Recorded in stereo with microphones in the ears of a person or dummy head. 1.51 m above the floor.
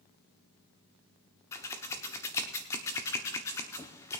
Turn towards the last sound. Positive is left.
turn(degrees=15)  # may be behind; listen again after turning